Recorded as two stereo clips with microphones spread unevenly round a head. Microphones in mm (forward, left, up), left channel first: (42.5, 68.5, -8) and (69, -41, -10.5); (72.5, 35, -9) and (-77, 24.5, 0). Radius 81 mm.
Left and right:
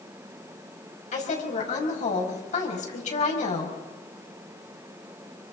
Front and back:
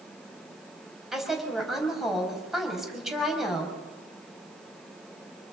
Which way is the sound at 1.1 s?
95° left.